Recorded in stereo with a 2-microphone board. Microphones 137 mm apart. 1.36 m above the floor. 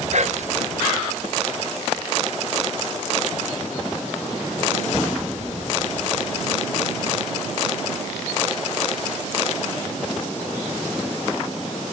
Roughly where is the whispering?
Right.